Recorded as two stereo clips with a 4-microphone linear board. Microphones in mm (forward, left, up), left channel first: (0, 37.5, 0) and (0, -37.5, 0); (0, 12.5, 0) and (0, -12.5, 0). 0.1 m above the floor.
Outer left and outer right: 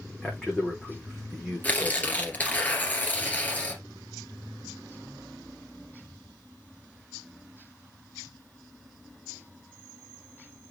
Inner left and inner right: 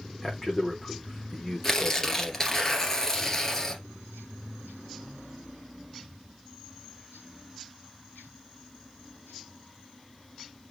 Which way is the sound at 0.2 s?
Centre (ahead or behind).